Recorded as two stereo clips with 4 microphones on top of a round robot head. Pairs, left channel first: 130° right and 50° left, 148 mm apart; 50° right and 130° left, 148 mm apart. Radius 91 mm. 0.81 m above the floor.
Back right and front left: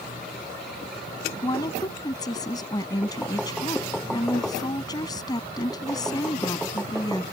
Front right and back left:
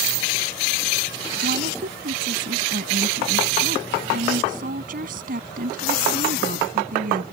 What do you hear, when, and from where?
1.4 s a woman speaking: 165° left